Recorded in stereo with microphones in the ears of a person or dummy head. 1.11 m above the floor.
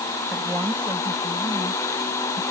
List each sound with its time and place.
0.3 s a woman speaking: 5° right (ahead or behind); by 2.4 s 15° right (ahead or behind)